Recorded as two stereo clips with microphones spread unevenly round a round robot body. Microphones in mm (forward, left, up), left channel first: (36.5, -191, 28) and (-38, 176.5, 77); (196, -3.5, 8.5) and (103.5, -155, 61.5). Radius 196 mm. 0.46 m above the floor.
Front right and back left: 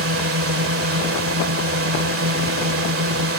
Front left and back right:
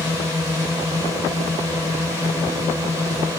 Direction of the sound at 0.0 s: 150° left.